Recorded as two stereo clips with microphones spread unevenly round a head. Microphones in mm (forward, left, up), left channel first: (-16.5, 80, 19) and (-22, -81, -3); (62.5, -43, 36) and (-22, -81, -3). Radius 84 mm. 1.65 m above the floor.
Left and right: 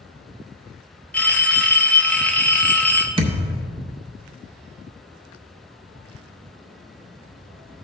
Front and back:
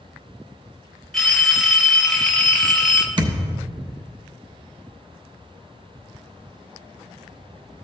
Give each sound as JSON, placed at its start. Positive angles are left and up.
{"t": 1.1, "sound": "a phone ringing", "azimuth_deg": 35, "distance_m": 0.5}
{"t": 3.2, "sound": "a thud", "azimuth_deg": -125, "distance_m": 1.0}